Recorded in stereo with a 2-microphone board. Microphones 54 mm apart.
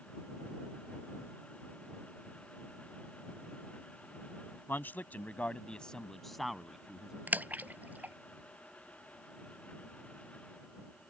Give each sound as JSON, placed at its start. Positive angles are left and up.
{"t": 4.7, "sound": "a man speaking", "side_deg": 40}
{"t": 7.3, "sound": "a splash", "side_deg": -30}